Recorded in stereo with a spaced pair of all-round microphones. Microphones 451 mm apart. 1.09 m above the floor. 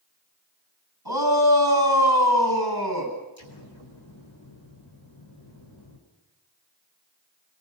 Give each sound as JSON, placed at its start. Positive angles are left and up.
{"t": 1.1, "sound": "a shout", "side_deg": -55, "distance_m": 8.5}
{"t": 3.4, "sound": "an explosion", "side_deg": 85, "distance_m": 4.5}